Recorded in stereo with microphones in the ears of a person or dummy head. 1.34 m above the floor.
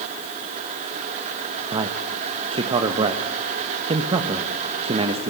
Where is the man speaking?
35° right (ahead or behind), 1.3 m.